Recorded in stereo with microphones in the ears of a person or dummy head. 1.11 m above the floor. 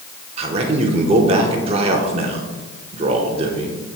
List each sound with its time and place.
0.4 s a man speaking: 30° right (ahead or behind), 0.8 m